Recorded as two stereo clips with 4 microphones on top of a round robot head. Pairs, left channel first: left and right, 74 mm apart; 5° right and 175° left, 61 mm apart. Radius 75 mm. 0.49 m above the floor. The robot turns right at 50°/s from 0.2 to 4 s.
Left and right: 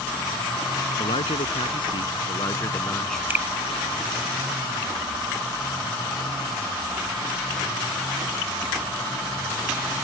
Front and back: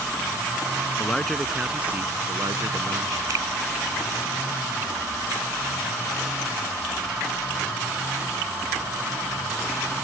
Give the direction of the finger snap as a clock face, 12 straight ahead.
5 o'clock.